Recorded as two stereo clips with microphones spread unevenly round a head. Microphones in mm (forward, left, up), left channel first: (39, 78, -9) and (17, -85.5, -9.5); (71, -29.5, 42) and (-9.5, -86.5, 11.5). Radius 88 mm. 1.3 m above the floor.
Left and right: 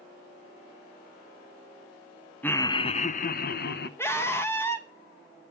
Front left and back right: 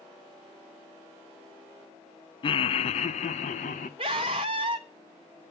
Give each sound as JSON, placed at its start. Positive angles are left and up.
{"t": 2.4, "sound": "laughter", "azimuth_deg": 0, "distance_m": 0.5}
{"t": 4.0, "sound": "a scream", "azimuth_deg": 160, "distance_m": 1.0}